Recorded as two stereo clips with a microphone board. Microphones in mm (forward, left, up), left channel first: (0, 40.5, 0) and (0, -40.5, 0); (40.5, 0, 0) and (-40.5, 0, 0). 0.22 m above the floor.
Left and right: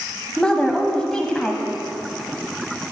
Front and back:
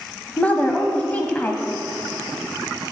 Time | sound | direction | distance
0.4 | a woman speaking | 25° left | 1.1 m